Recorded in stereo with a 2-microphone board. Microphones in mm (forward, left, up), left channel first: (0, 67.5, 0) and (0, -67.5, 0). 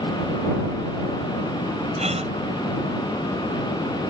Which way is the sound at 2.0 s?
55° right (ahead or behind).